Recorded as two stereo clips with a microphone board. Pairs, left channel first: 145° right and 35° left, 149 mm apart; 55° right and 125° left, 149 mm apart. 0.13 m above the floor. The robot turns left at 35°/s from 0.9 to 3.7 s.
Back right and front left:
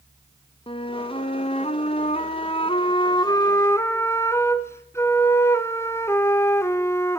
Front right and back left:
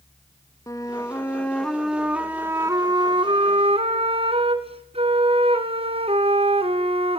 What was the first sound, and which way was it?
A flute, 115° right.